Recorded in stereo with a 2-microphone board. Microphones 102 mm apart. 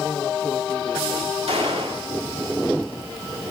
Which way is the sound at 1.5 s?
80° right.